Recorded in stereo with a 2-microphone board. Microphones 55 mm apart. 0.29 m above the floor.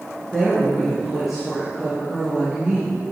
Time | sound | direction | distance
0.3 | a woman speaking | 5° left (ahead or behind) | 3.5 m